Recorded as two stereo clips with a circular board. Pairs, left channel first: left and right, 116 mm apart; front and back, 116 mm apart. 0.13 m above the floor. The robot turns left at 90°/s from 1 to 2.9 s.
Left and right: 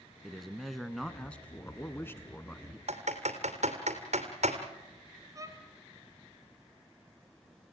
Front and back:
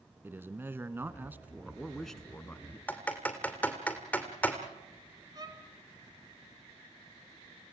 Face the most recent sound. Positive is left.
turn(degrees=-140)